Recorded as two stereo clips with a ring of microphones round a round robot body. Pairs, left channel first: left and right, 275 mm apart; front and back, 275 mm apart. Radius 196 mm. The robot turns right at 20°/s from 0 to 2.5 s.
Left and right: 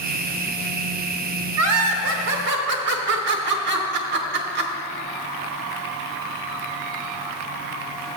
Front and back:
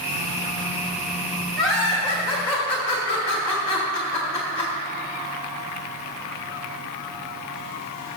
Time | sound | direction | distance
1.6 | laughter | 95° right | 1.0 m